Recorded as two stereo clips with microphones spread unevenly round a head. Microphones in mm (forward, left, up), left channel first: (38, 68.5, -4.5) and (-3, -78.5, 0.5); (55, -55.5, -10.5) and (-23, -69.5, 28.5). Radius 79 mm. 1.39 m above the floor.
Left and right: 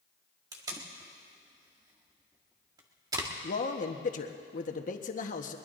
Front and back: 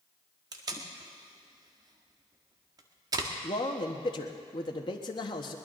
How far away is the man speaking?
About 1.2 m.